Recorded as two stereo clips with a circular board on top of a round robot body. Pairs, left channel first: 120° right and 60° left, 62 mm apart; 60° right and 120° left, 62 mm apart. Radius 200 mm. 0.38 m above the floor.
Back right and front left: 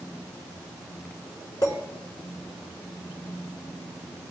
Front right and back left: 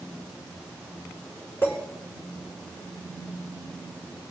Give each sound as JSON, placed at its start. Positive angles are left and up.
{"t": 1.6, "sound": "a clink", "azimuth_deg": -115, "distance_m": 5.0}